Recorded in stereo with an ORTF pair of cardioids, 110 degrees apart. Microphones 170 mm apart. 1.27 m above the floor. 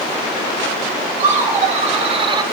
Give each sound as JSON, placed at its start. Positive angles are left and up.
{"t": 1.2, "sound": "laughter", "azimuth_deg": -45, "distance_m": 2.5}